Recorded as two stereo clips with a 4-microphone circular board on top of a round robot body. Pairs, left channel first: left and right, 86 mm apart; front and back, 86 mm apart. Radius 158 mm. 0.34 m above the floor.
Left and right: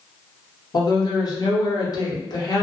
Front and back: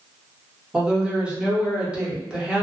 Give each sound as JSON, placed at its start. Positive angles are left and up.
{"t": 0.7, "sound": "a woman speaking", "azimuth_deg": 105, "distance_m": 1.1}